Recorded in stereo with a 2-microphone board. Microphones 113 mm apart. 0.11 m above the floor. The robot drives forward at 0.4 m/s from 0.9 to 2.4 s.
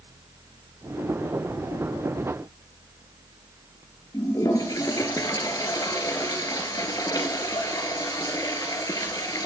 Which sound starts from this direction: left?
A toilet flushing, at 4.1 s.